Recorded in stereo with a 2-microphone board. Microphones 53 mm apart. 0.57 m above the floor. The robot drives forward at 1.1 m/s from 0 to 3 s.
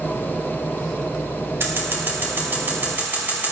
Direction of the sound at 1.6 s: 50° right (ahead or behind).